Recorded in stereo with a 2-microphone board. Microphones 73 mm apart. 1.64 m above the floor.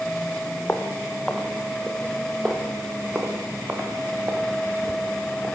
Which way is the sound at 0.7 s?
20° left (ahead or behind).